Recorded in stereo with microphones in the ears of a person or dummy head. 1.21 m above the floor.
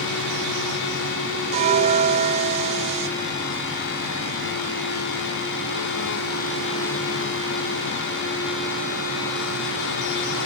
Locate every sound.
1.5 s a bell: 35° right (ahead or behind), 1.0 m